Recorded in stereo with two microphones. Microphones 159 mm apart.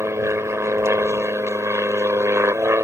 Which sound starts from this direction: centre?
An aircraft, at 0.0 s.